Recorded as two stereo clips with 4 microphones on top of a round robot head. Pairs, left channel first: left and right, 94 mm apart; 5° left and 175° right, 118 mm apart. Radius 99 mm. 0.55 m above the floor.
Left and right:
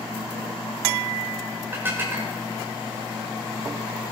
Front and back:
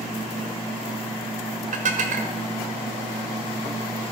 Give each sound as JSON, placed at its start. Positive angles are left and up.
{"t": 1.7, "sound": "dishes clattering", "azimuth_deg": -160, "distance_m": 1.3}